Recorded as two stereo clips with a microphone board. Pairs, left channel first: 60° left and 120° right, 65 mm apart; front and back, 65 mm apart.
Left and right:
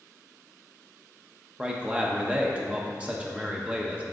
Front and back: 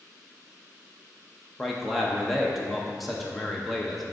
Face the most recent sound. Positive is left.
turn(degrees=-90)